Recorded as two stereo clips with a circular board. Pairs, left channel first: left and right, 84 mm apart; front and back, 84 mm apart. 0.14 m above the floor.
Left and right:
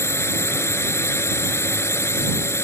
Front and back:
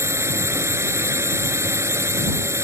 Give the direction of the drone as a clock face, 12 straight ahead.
7 o'clock.